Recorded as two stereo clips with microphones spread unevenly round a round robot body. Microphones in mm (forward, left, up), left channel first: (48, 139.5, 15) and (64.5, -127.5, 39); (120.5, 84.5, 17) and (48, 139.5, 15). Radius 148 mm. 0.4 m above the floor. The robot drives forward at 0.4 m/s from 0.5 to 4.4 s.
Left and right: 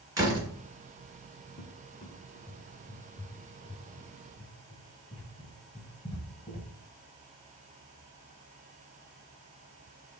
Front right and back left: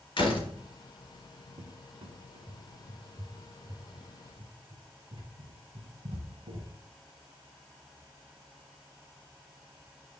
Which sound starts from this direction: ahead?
A door slam, at 0.2 s.